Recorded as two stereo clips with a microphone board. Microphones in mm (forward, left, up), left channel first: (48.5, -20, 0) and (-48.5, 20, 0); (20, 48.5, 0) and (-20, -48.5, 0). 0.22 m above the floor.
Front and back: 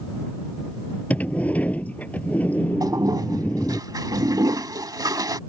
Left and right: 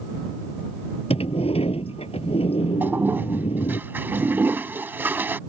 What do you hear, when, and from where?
1.1 s a sliding door: 55° left
2.8 s a toilet flushing: 175° right